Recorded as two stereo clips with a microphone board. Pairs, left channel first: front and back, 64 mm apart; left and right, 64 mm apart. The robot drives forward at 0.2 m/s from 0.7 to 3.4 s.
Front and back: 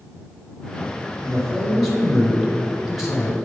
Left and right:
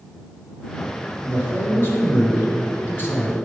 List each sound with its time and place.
1.2 s a man speaking: 80° left, 1.8 m; by 3.4 s 100° left, 1.8 m